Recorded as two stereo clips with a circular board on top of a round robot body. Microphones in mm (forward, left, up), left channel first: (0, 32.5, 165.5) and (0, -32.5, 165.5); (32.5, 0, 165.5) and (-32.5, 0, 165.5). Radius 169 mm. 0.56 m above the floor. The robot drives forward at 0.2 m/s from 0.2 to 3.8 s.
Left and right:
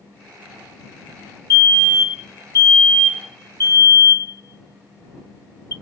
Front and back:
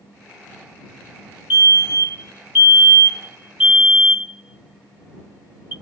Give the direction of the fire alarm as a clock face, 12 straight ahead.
8 o'clock.